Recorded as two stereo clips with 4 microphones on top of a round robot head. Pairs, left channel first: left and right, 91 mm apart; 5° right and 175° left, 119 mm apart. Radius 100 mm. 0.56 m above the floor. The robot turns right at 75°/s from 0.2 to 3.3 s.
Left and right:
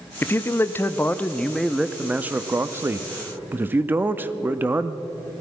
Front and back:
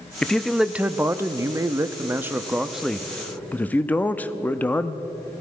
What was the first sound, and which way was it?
A man speaking, 70° left.